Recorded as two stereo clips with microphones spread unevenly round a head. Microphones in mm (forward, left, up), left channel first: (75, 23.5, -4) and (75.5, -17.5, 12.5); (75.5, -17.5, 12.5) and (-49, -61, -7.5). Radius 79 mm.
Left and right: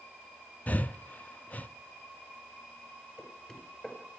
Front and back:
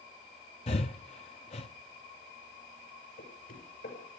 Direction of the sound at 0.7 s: 75° left.